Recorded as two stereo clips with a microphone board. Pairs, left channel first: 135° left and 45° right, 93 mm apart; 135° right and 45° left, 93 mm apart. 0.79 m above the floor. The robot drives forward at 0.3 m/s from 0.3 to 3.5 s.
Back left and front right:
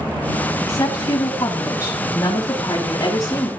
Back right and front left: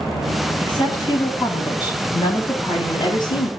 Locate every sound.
0.6 s a woman speaking: 165° right, 6.5 m; by 3.5 s 170° right, 7 m